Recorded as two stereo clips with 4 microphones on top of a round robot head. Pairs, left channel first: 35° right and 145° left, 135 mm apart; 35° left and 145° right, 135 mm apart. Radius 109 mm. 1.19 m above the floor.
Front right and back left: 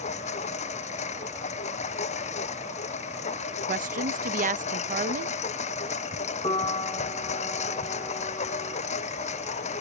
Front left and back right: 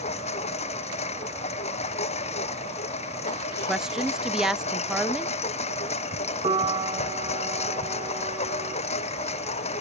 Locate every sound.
0.0 s a lawn mower: straight ahead
3.7 s a woman speaking: 130° left
6.4 s a piano: 90° right